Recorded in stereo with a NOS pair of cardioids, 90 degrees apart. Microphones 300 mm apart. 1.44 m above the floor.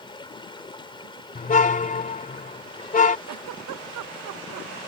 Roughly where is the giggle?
Right.